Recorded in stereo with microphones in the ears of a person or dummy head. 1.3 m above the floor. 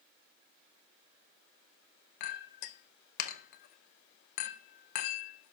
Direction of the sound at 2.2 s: 50° left (ahead or behind).